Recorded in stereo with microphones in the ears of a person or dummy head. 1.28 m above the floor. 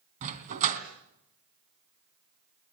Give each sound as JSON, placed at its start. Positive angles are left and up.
{"t": 0.2, "sound": "a dog barking", "side_deg": -45, "distance_m": 3.0}